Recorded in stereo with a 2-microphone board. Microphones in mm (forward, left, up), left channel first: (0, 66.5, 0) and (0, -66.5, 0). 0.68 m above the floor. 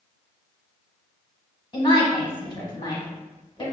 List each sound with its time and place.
1.7 s a woman speaking: 30° left (ahead or behind), 1.1 m